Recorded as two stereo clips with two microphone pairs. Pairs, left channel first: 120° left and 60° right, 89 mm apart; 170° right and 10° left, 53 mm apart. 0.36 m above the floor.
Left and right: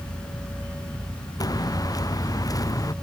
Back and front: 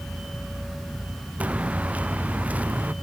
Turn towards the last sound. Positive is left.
turn(degrees=70)